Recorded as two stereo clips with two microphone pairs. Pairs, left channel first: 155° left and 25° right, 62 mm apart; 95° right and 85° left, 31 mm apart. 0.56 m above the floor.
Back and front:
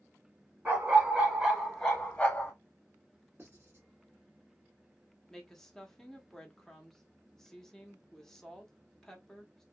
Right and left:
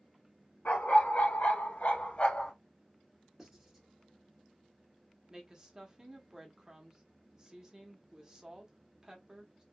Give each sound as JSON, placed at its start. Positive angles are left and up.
{"t": 0.7, "sound": "a dog barking", "azimuth_deg": -85, "distance_m": 1.3}
{"t": 3.4, "sound": "writing", "azimuth_deg": 10, "distance_m": 1.7}
{"t": 5.3, "sound": "a woman speaking", "azimuth_deg": 80, "distance_m": 0.8}